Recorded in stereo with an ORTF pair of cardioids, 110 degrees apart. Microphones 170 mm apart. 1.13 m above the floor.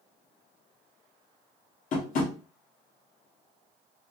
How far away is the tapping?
About 1.2 m.